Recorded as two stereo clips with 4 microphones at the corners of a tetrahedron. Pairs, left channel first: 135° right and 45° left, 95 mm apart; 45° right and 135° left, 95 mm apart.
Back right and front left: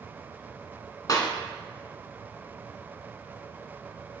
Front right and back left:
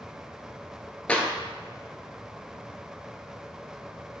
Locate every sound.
1.1 s a clap: 115° right, 1.5 m